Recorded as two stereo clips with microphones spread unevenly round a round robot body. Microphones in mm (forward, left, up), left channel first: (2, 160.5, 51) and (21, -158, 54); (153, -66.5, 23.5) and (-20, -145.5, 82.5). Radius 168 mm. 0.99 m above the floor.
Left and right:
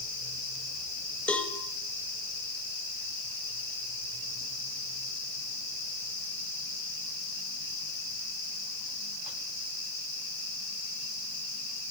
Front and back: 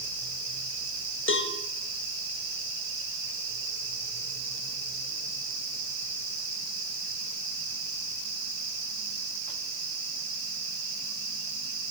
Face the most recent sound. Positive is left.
turn(degrees=5)